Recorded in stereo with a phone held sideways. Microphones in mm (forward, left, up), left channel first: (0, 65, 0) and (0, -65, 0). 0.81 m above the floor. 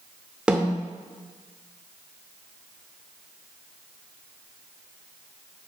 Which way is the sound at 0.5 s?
10° right (ahead or behind).